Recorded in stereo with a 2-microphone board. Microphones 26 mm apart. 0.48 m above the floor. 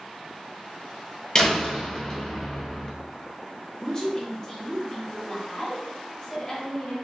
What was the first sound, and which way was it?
A door slam, 30° left (ahead or behind).